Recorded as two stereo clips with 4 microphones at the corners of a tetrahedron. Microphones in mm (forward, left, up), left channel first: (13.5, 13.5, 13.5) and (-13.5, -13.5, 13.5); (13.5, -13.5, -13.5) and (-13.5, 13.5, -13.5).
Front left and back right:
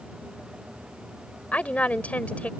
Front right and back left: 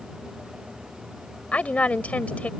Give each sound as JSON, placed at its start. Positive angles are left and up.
{"t": 1.5, "sound": "a woman speaking", "azimuth_deg": 0}